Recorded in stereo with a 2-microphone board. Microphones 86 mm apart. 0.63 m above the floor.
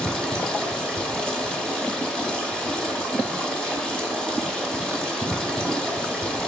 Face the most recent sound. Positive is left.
turn(degrees=10)  # may be behind; listen again after turning